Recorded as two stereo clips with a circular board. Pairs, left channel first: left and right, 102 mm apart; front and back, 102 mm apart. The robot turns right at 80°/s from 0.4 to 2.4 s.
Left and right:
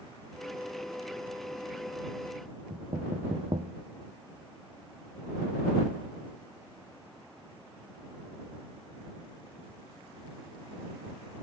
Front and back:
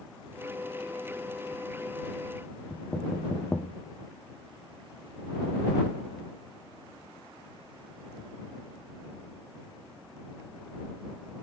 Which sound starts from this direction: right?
Knocking, at 2.7 s.